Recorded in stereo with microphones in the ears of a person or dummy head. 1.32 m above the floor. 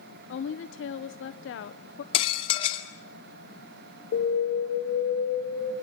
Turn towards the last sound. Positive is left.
turn(degrees=60)  # may be behind; listen again after turning